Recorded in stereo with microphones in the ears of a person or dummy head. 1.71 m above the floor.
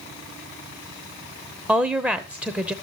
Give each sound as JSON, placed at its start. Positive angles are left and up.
{"t": 1.7, "sound": "a woman speaking", "side_deg": -10, "distance_m": 0.8}